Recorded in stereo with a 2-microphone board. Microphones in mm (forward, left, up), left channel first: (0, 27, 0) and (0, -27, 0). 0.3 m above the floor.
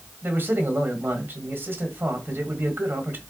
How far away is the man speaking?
About 1.7 m.